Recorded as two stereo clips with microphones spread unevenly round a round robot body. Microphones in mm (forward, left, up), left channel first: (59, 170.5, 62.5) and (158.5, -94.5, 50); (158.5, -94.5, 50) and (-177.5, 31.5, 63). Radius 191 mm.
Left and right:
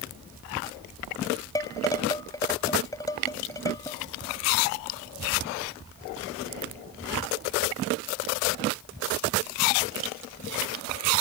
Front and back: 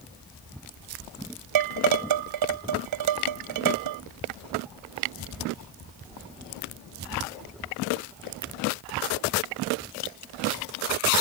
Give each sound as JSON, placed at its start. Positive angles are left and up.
{"t": 1.6, "sound": "dishes clattering", "azimuth_deg": -170}